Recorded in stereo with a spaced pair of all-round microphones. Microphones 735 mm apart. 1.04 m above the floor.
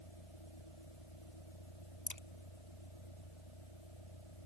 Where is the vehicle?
40° left (ahead or behind).